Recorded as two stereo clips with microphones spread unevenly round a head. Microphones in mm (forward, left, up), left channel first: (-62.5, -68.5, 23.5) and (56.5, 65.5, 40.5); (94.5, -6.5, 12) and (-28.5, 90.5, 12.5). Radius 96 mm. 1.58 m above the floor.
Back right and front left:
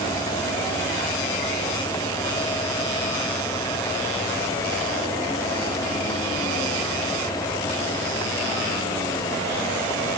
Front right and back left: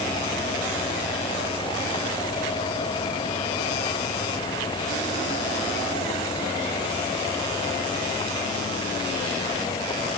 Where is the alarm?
I don't hear an alarm.